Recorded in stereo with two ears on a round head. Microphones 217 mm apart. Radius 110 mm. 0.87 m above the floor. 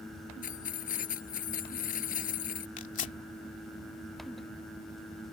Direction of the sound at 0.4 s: 35° left (ahead or behind).